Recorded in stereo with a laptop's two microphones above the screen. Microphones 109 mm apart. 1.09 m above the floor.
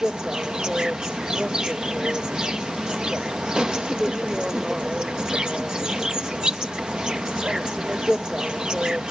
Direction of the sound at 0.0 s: 5° right (ahead or behind).